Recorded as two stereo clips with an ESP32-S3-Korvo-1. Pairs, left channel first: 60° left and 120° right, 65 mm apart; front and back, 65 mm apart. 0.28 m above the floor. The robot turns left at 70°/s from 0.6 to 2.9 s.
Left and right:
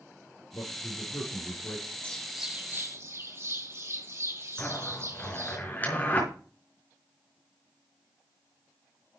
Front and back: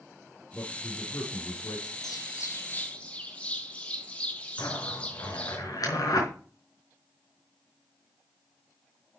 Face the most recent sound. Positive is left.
turn(degrees=0)